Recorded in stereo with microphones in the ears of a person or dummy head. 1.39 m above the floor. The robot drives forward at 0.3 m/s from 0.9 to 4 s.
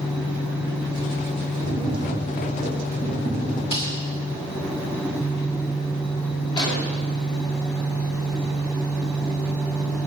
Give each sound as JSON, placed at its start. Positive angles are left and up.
{"t": 1.6, "sound": "tapping", "side_deg": 35, "distance_m": 7.0}
{"t": 3.7, "sound": "a snare drum", "side_deg": 30, "distance_m": 3.0}
{"t": 6.6, "sound": "an explosion", "side_deg": 25, "distance_m": 2.5}